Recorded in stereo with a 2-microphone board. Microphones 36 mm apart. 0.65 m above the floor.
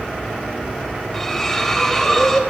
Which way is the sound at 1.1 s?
10° left (ahead or behind).